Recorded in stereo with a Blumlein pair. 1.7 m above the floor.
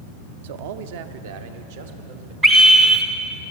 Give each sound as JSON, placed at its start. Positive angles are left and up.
{"t": 0.4, "sound": "a man speaking", "azimuth_deg": -55, "distance_m": 0.5}
{"t": 2.4, "sound": "a scream", "azimuth_deg": -30, "distance_m": 0.6}